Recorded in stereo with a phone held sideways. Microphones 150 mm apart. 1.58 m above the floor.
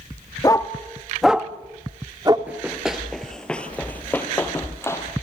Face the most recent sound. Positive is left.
turn(degrees=20)  # may be behind; listen again after turning